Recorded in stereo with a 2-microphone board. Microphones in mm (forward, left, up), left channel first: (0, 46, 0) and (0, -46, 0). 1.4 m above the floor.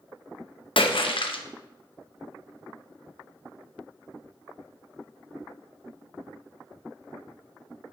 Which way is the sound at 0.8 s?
70° left (ahead or behind).